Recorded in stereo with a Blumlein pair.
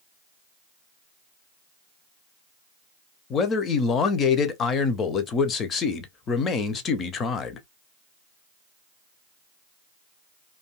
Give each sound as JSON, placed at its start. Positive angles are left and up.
{"t": 3.3, "sound": "a man speaking", "azimuth_deg": 25, "distance_m": 0.5}